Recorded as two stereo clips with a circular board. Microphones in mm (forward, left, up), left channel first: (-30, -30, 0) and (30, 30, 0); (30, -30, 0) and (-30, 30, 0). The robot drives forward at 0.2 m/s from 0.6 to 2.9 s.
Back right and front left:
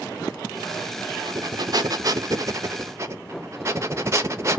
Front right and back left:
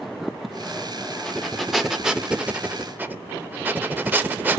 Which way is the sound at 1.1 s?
40° left.